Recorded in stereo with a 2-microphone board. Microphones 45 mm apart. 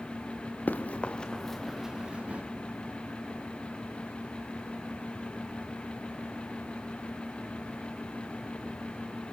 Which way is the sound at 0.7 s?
40° left (ahead or behind).